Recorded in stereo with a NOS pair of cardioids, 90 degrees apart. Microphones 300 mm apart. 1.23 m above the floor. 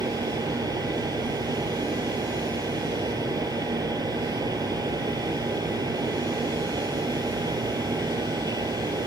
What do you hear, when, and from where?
0.0 s a fan: 15° right